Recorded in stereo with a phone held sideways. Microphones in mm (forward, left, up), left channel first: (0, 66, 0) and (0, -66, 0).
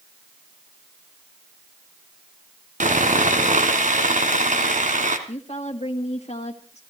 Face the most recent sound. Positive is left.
turn(degrees=55)  # may be behind; listen again after turning